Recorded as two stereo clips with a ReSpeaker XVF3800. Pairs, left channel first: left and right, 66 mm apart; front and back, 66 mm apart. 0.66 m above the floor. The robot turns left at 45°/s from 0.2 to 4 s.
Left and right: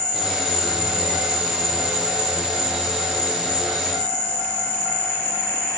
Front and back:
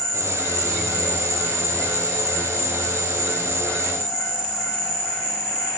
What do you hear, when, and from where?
0.0 s an insect: 75° right, 1.6 m; by 5.8 s 115° left, 1.6 m